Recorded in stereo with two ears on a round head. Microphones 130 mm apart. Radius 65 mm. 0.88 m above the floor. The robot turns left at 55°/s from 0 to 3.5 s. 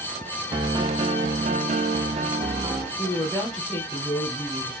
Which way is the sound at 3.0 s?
45° left (ahead or behind).